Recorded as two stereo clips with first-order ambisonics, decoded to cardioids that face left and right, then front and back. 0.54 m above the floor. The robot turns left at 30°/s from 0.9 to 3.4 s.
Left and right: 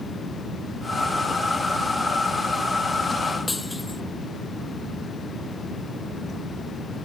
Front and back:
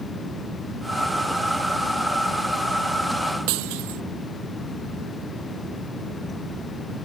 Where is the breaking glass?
175° left.